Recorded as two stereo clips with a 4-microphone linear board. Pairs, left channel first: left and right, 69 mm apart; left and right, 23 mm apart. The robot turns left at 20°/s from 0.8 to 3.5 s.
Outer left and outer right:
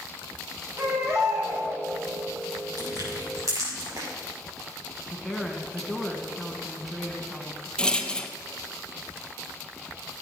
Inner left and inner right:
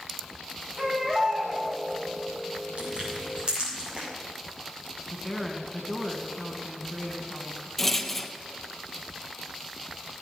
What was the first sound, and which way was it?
A baby crying, 35° right (ahead or behind).